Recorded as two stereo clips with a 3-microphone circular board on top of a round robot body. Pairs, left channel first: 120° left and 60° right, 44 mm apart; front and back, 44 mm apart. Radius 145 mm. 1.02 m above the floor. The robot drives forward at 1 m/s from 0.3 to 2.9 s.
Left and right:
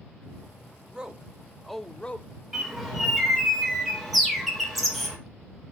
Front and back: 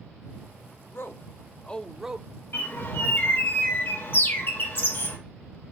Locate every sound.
0.9 s a man speaking: 10° left, 1.3 m; by 2.3 s 150° left, 0.8 m
2.5 s a bird: 25° left, 2.5 m; by 5.2 s 30° left, 2 m